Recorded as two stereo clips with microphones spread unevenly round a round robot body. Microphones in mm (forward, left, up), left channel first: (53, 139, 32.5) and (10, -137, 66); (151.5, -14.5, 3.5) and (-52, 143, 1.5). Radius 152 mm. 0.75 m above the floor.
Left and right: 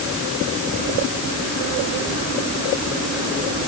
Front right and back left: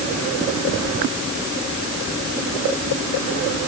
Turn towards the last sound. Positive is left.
No sound to turn to.